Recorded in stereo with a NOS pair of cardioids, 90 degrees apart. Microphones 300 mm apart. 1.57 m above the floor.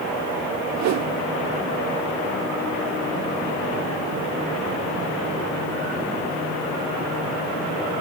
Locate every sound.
0.8 s a whoosh: 65° right, 0.6 m